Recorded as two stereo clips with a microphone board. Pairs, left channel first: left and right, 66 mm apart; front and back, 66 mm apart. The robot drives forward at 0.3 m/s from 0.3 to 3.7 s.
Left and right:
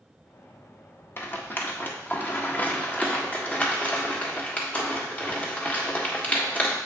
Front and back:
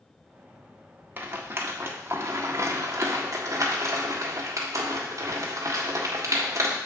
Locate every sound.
1.2 s a rattle: 130° left, 1.0 m; by 6.8 s 155° left, 1.5 m